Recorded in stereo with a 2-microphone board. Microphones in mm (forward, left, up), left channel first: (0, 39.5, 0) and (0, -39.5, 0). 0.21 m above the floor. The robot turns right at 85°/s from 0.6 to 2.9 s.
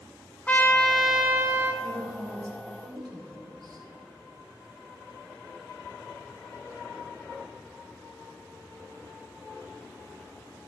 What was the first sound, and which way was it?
A trumpet, 150° left.